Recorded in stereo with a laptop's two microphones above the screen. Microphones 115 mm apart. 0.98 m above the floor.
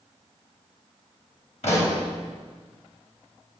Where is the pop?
70° left (ahead or behind), 3 m.